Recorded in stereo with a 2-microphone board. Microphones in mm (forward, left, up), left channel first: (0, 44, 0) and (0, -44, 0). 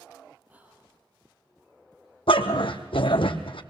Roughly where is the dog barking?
Left.